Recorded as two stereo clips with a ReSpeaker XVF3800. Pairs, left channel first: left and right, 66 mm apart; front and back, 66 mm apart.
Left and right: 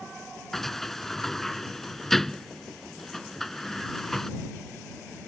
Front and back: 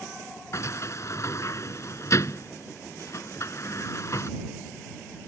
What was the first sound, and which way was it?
A sliding door, 5° left.